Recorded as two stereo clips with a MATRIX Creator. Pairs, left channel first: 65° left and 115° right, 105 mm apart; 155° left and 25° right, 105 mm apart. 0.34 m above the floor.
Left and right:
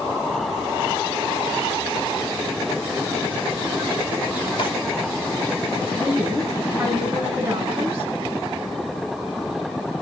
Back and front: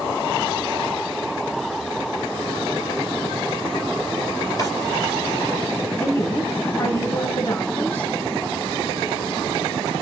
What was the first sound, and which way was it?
A drawer, 100° left.